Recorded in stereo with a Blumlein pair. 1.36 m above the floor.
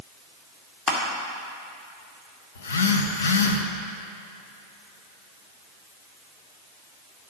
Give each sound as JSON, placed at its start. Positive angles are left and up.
{"t": 0.9, "sound": "crushing", "azimuth_deg": 30, "distance_m": 2.0}
{"t": 2.5, "sound": "a phone buzzing", "azimuth_deg": 65, "distance_m": 0.9}